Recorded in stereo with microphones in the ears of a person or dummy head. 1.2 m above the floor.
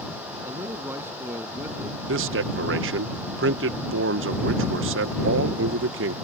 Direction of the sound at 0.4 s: 15° right (ahead or behind).